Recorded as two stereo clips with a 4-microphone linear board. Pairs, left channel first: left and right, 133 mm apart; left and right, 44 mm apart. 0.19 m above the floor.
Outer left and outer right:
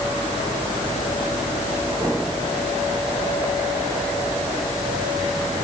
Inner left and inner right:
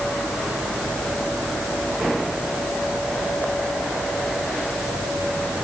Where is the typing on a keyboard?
No typing on a keyboard in this recording.